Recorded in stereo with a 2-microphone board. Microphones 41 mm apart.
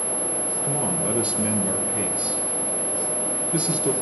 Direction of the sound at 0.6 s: 30° right (ahead or behind).